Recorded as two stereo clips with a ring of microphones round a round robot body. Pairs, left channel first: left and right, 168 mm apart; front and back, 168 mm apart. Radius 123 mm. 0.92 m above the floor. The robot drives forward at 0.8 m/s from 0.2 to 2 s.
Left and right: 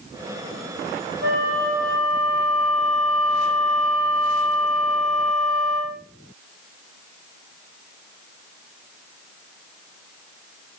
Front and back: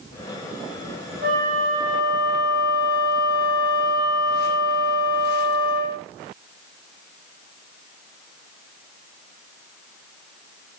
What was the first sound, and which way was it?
A flute, 125° right.